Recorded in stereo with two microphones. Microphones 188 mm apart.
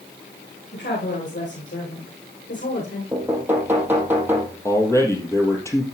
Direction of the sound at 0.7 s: 85° left.